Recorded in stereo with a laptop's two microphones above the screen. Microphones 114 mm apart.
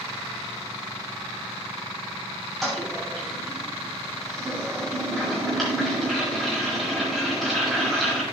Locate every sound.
2.6 s a toilet flushing: centre (ahead or behind), 6.5 m